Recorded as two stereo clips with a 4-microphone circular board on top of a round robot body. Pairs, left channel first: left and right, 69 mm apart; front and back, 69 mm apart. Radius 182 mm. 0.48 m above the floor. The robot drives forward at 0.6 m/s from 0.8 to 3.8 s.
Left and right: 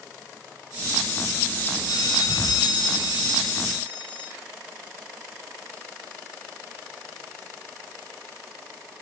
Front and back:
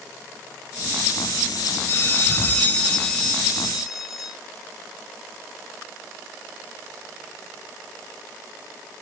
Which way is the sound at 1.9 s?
55° left.